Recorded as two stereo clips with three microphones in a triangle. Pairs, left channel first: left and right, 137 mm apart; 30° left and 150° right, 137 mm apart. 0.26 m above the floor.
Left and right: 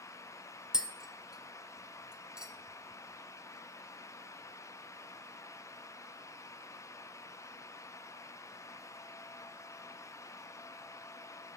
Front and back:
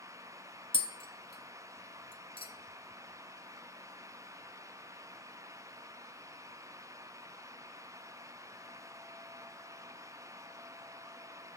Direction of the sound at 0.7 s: 10° right.